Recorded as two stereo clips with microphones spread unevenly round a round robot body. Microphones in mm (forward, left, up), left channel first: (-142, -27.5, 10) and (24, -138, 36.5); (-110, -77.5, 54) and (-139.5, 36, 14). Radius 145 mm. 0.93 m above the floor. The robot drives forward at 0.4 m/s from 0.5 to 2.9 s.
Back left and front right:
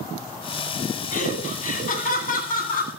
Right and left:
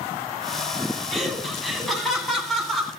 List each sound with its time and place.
1.1 s laughter: 165° right, 9 m